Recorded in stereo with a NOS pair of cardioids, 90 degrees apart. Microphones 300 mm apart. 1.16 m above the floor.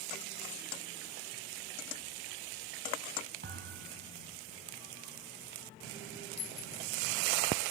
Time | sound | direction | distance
3.4 | a thud | 35° right | 3.5 m
6.4 | a clink | 55° left | 3 m